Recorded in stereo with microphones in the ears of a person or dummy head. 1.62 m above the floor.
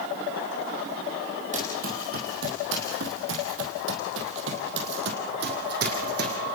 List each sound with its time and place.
1.5 s running footsteps: 35° right (ahead or behind), 4 m; by 6.4 s 55° right (ahead or behind), 5 m